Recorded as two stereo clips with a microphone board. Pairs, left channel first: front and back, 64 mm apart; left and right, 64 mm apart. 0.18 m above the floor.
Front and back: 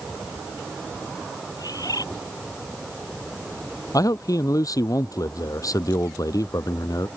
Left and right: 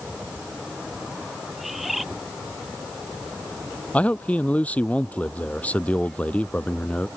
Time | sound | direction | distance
1.6 | a bird | straight ahead | ?
3.9 | a man speaking | 25° left | ?